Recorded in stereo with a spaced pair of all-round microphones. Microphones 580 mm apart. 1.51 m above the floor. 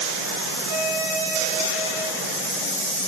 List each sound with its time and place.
0.7 s a violin: 80° right, 3.5 m